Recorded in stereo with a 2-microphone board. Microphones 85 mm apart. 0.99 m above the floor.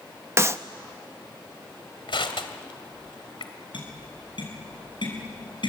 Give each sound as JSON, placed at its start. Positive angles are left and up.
{"t": 0.4, "sound": "a clap", "side_deg": -30, "distance_m": 0.8}
{"t": 2.1, "sound": "crushing", "side_deg": 75, "distance_m": 2.0}
{"t": 3.7, "sound": "tapping", "side_deg": 65, "distance_m": 7.0}